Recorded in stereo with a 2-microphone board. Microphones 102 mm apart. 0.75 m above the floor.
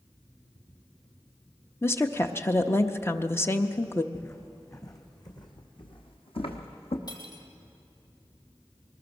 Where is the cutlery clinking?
45° left (ahead or behind), 2.5 m.